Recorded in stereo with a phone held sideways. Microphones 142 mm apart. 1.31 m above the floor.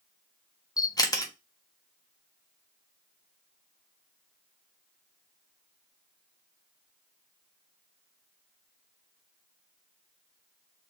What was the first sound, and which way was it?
A camera shutter, 25° left (ahead or behind).